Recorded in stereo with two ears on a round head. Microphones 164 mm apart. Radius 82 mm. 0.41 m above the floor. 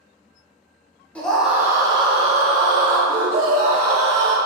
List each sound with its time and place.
1.1 s a scream: 10° left (ahead or behind), 0.9 m; by 4.3 s 65° right (ahead or behind), 2 m